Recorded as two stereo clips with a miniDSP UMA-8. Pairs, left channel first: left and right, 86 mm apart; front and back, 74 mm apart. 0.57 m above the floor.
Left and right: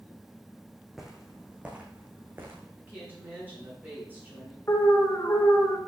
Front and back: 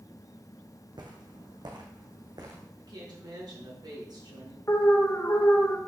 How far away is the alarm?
About 1.4 m.